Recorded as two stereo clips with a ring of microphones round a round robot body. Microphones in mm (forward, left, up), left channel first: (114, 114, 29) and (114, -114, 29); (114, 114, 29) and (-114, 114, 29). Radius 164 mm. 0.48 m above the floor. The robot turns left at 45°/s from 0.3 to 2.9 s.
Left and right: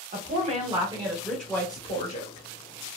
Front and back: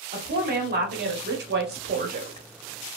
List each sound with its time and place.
0.1 s a woman speaking: 135° right, 0.9 m; by 2.5 s 130° left, 0.9 m